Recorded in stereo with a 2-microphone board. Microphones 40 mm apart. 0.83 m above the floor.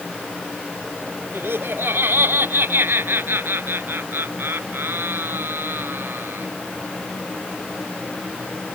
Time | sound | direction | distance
1.3 | laughter | 65° right (ahead or behind) | ?